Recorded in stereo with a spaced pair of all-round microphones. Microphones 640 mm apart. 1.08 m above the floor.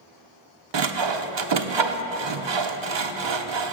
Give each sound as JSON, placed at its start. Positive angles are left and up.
{"t": 0.7, "sound": "sawing", "side_deg": -45, "distance_m": 0.6}